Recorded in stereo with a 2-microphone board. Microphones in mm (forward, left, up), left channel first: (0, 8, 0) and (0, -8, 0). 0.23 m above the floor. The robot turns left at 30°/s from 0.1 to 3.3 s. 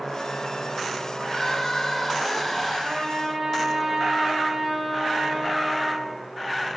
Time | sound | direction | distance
1.2 | crying | 30° left | 5 m
2.8 | a trumpet | 50° right (ahead or behind) | 6.5 m